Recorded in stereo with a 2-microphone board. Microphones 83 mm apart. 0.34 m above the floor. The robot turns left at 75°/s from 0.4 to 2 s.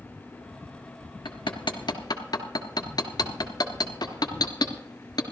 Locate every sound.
1.2 s hammering: 70° left (ahead or behind), 1.2 m; by 5.2 s 55° left (ahead or behind), 1.2 m